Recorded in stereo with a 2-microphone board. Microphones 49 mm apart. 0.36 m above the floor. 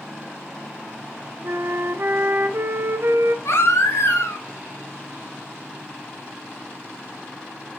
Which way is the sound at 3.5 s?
65° left (ahead or behind).